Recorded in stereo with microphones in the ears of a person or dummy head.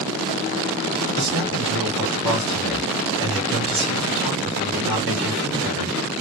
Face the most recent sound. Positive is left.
turn(degrees=-15)  # may be behind; listen again after turning